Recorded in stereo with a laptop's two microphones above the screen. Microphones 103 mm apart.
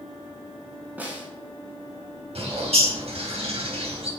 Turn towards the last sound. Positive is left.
turn(degrees=-80)